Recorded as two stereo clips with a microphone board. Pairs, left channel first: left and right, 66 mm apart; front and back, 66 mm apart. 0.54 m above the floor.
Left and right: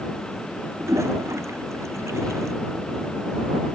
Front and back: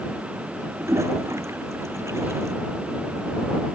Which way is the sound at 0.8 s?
135° right.